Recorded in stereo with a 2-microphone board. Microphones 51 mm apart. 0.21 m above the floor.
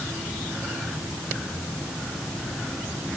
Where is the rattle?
I don't hear a rattle.